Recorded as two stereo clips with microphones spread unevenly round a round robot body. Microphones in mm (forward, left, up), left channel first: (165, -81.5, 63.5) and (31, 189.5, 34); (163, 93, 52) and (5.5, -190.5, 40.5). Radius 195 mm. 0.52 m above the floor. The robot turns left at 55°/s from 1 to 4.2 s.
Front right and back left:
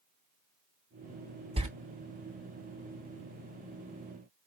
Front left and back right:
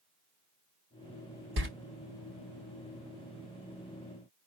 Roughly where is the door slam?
Behind.